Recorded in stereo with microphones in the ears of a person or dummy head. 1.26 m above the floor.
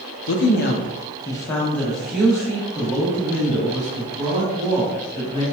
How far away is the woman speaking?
About 0.5 m.